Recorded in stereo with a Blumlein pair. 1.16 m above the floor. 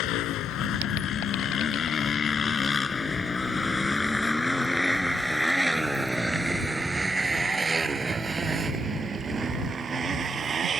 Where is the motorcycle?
40° left; by 10.8 s 20° right.